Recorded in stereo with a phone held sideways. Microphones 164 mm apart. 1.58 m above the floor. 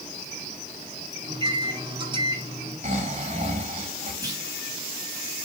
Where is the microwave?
30° right (ahead or behind), 5 m.